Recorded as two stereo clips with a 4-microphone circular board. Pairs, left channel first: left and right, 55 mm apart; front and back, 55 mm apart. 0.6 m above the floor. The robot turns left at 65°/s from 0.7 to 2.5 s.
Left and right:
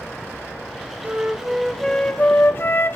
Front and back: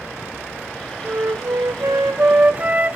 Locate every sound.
1.0 s a flute: 140° right, 0.6 m; by 3.0 s 125° left, 0.6 m